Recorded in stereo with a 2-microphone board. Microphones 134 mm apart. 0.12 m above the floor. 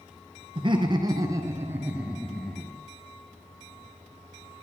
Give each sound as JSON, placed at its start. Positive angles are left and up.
{"t": 0.6, "sound": "laughter", "side_deg": -40, "distance_m": 2.0}